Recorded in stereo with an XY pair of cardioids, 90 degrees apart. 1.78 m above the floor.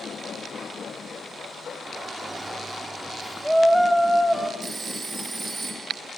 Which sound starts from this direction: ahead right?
A phone ringing, at 4.6 s.